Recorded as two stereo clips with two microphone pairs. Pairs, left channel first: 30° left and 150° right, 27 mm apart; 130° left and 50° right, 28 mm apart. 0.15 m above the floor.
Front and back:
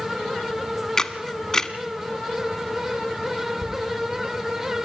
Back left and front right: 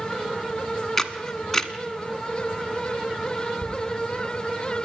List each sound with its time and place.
1.0 s a camera shutter: 60° left, 1.2 m
3.6 s a toilet flushing: 165° right, 6.5 m